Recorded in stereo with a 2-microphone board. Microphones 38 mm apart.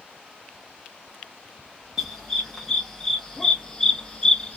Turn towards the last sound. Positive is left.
turn(degrees=25)  # may be behind; listen again after turning